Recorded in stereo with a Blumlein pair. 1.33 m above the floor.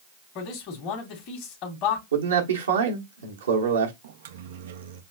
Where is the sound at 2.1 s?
70° right, 1.3 m.